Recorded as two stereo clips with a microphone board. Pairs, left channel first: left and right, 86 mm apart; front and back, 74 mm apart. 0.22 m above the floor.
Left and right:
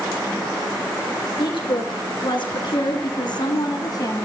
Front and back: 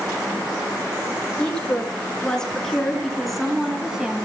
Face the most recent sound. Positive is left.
turn(degrees=105)